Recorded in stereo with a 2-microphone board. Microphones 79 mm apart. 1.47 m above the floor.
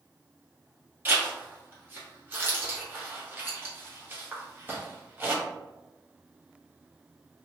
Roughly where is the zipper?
Right.